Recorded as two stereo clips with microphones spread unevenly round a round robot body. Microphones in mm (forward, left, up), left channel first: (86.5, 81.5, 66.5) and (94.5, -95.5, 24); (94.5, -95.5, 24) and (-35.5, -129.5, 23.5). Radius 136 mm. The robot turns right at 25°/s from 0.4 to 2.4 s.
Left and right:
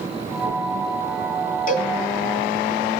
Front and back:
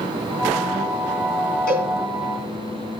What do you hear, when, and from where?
1.7 s a cowbell: 50° left, 3 m; by 1.9 s 60° left, 3 m